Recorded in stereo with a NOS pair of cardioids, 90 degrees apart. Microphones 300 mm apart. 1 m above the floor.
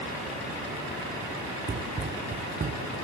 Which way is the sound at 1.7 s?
35° right.